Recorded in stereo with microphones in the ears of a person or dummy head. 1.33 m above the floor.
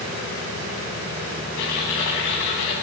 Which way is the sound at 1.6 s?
75° left (ahead or behind).